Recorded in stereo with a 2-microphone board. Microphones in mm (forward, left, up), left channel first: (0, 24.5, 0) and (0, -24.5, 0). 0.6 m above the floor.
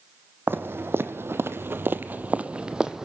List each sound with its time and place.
0.5 s footsteps: 50° right (ahead or behind), 1.4 m; by 3.1 s 10° right (ahead or behind), 1.2 m